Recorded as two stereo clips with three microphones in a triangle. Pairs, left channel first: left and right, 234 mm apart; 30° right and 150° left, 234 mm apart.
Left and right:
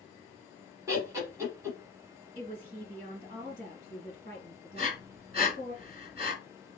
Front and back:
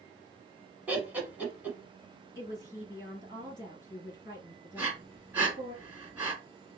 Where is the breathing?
130° right, 1.4 m.